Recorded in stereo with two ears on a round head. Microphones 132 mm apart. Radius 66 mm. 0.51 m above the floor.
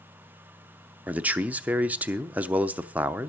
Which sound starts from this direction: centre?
A man speaking, at 1.1 s.